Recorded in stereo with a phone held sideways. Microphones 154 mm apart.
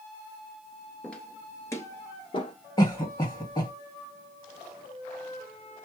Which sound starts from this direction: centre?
Footsteps, at 1.0 s.